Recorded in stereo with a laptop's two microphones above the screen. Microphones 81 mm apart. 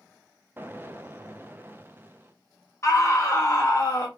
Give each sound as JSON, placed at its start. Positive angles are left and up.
{"t": 0.6, "sound": "an explosion", "side_deg": -25, "distance_m": 0.5}
{"t": 2.8, "sound": "a scream", "side_deg": 35, "distance_m": 1.4}